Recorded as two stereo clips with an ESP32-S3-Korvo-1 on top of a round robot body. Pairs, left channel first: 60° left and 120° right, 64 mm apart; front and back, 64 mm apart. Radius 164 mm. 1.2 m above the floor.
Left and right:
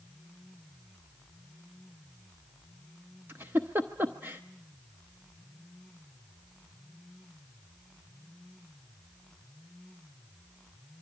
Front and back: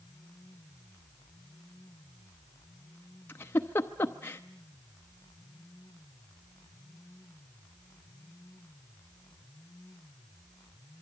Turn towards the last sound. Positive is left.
turn(degrees=-55)